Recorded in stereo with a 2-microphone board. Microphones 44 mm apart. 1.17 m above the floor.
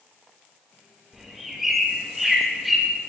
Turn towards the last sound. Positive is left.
turn(degrees=-5)  # may be behind; listen again after turning